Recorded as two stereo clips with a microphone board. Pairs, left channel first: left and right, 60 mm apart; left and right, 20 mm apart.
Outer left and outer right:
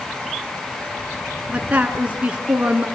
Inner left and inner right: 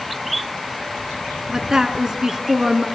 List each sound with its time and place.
1.5 s a woman speaking: 25° right (ahead or behind), 2.5 m